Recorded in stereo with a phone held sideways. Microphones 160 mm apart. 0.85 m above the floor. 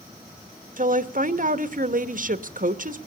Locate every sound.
0.8 s a woman speaking: 55° right (ahead or behind), 1.2 m